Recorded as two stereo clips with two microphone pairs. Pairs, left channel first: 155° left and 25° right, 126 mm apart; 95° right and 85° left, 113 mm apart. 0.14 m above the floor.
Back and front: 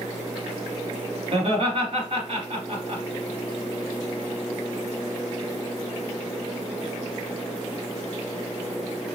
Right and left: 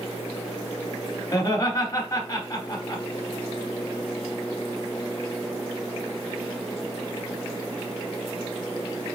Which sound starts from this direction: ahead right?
Laughter, at 1.3 s.